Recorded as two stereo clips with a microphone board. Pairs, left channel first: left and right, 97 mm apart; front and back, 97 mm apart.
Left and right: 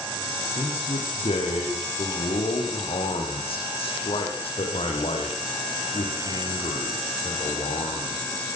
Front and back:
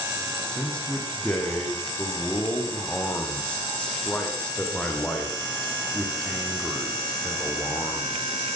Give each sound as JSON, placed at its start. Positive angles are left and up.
{"t": 0.5, "sound": "a man speaking", "azimuth_deg": 80, "distance_m": 8.0}